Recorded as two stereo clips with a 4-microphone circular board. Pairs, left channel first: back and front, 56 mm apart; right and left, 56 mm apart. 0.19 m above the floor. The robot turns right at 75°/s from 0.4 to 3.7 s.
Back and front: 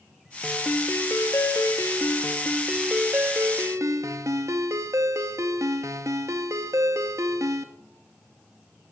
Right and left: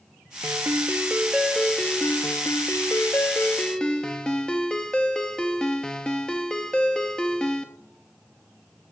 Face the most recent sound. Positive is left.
turn(degrees=-15)